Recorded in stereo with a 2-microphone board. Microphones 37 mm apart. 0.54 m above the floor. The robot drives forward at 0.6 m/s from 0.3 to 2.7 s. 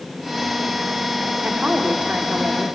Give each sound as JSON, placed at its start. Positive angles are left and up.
{"t": 1.4, "sound": "a woman speaking", "side_deg": -35, "distance_m": 1.7}